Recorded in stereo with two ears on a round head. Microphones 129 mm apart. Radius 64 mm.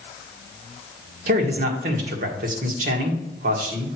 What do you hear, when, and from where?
1.3 s a man speaking: 60° right (ahead or behind), 1.6 m